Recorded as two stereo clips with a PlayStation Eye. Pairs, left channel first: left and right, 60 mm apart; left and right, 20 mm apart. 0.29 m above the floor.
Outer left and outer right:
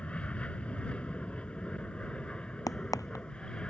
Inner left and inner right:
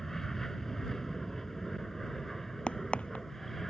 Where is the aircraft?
20° left (ahead or behind); by 3.7 s 15° left (ahead or behind).